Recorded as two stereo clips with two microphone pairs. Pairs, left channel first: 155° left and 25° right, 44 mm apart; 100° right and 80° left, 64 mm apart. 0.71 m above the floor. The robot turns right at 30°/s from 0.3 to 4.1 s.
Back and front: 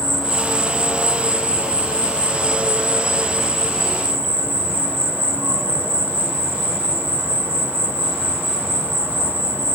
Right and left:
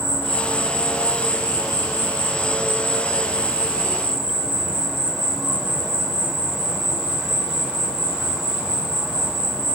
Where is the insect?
130° right, 0.8 m; by 9.8 s 15° right, 0.8 m.